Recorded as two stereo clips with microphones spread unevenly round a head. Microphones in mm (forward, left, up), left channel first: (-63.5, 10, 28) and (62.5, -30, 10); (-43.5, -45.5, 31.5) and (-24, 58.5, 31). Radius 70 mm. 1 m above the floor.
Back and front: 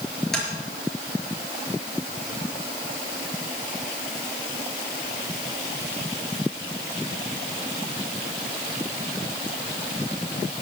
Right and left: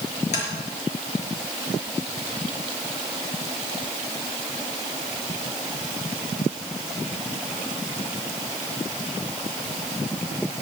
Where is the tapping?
110° right, 5 m.